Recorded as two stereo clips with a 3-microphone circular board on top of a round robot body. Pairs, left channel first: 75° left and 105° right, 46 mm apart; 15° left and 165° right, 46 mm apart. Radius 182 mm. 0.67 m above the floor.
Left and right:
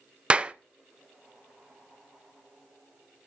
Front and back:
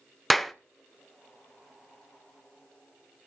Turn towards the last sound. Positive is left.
turn(degrees=-70)